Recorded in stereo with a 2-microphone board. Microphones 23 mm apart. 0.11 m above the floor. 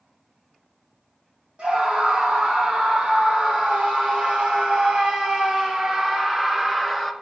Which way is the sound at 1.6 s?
60° right (ahead or behind).